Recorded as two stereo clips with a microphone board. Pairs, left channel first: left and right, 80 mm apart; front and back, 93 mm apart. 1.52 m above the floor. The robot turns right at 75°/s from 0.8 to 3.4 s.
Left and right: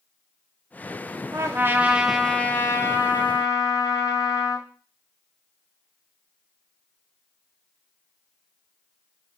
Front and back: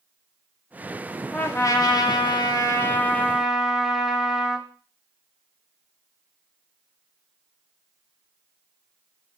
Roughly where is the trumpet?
Ahead right.